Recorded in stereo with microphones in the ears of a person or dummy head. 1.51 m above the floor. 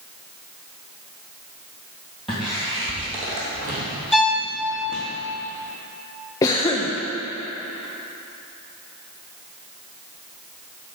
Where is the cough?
20° left (ahead or behind), 0.6 m.